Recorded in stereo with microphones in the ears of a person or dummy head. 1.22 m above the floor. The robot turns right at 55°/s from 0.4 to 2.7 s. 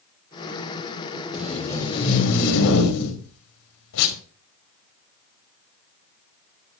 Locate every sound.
1.3 s tape being pulled: 5° right, 3 m; by 4.2 s 70° left, 3 m